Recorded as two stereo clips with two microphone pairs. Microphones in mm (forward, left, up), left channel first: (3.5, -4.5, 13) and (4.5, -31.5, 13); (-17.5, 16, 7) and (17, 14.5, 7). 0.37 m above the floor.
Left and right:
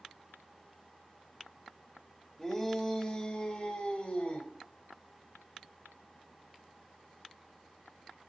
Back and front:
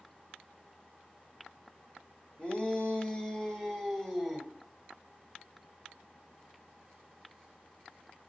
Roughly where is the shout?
Behind left.